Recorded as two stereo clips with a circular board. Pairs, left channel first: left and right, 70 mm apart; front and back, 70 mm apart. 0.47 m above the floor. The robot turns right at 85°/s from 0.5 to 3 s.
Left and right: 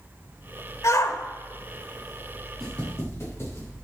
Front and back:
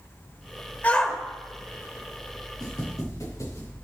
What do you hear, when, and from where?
0.8 s a shout: 60° left, 1.4 m; by 1.2 s 90° left, 1.4 m
2.6 s footsteps: 5° left, 5.5 m; by 3.7 s 40° left, 6.5 m